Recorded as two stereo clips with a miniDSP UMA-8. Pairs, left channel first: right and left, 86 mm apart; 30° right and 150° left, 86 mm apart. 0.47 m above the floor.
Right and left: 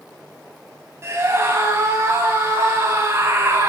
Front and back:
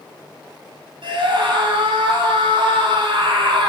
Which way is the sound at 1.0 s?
145° left.